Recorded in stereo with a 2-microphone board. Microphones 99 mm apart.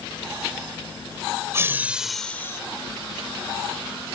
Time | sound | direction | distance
1.5 | laughter | 25° right (ahead or behind) | ?